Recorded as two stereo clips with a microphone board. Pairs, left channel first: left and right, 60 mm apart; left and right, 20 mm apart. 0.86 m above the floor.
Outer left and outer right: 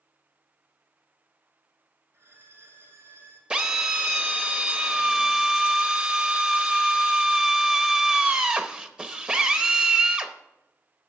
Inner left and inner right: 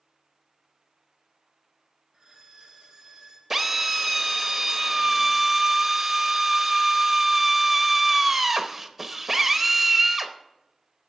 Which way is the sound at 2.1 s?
45° right (ahead or behind).